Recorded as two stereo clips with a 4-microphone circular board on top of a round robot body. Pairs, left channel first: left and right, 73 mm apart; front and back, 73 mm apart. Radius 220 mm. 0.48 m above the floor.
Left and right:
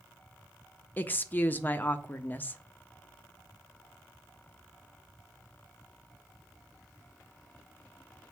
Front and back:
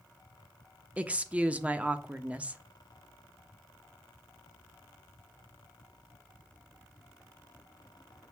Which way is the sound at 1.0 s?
125° left.